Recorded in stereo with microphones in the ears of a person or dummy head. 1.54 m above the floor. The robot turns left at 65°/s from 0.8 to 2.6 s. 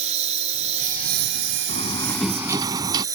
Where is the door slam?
35° left; by 3.0 s 25° right.